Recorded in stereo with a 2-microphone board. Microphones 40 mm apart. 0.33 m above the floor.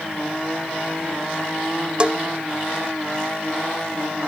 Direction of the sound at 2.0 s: 25° right (ahead or behind).